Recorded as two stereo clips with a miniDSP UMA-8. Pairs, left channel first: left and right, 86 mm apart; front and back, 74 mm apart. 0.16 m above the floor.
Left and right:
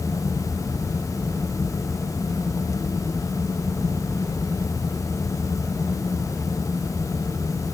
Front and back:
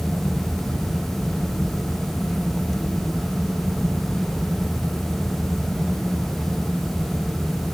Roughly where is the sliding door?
No sliding door in this recording.